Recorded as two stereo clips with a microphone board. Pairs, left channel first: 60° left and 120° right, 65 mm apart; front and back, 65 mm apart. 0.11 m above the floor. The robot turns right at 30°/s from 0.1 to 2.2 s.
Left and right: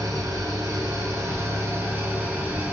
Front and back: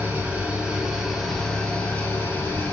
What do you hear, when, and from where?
0.0 s an engine running: 115° right, 1.0 m; by 2.7 s 55° right, 1.0 m